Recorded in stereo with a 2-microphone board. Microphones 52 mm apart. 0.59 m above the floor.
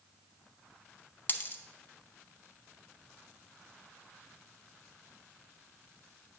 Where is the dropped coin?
35° left (ahead or behind), 0.5 m.